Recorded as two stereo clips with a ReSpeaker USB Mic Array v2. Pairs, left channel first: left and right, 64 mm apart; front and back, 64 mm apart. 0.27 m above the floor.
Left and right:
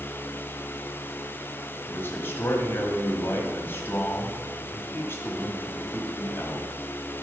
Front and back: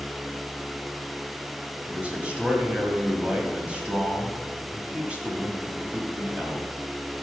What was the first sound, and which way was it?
A man speaking, 120° left.